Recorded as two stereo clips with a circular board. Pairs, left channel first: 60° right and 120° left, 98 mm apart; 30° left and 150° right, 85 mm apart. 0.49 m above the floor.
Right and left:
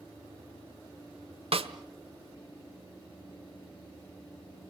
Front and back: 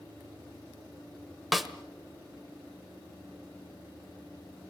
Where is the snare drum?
120° left, 1.1 m.